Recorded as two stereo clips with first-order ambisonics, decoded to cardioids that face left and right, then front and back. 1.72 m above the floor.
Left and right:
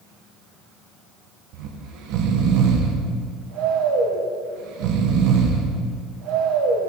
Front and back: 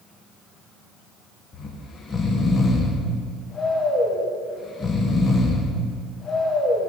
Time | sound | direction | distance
1.5 | snoring | 70° right | 1.2 m